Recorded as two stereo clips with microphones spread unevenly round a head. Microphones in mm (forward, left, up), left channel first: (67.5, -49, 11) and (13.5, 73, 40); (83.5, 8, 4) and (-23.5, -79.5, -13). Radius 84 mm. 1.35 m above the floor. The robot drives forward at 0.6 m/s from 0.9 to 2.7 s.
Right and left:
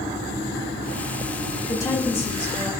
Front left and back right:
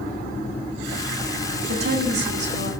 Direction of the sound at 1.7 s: 140° right.